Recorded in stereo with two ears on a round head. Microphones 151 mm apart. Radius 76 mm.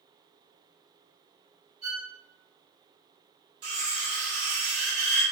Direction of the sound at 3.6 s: 65° right (ahead or behind).